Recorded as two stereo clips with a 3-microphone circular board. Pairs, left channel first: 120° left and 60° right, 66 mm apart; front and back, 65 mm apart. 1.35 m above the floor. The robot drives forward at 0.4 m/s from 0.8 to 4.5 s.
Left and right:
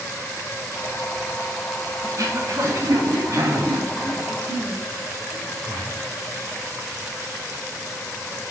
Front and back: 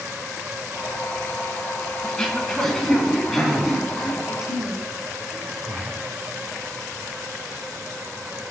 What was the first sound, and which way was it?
Throat clearing, 80° right.